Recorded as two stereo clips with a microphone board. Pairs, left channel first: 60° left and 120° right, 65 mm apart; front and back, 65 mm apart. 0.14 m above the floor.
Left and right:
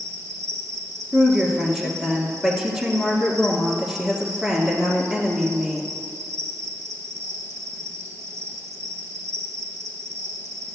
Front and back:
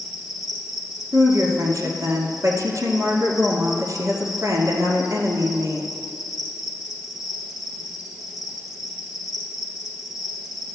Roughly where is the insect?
Right.